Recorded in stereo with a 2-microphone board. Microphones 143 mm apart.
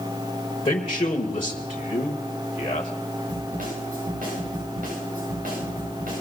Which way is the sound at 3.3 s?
80° right.